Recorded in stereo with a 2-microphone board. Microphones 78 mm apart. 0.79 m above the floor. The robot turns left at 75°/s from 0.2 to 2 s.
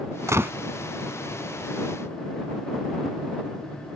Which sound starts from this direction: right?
A gunshot, at 0.3 s.